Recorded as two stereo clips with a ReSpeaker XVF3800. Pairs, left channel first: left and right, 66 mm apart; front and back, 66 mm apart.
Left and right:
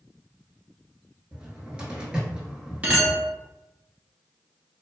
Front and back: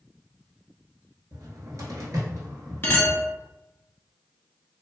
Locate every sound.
1.3 s a cupboard door: 160° right, 0.8 m
2.8 s a clink: 35° right, 0.9 m